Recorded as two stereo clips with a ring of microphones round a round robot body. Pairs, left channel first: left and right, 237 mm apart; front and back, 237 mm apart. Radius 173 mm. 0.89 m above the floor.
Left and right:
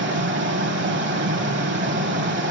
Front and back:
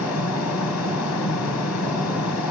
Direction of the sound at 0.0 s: 50° right.